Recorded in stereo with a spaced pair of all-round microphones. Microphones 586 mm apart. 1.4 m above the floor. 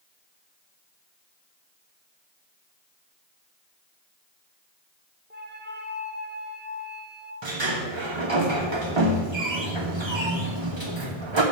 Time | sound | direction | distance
5.3 | a flute | 20° right (ahead or behind) | 0.8 m
7.4 | a sliding door | 50° right (ahead or behind) | 1.2 m